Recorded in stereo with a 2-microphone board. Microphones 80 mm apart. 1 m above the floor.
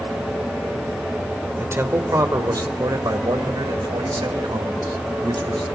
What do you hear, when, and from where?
1.6 s a man speaking: 30° right (ahead or behind), 3 m; by 5.6 s 90° right, 7 m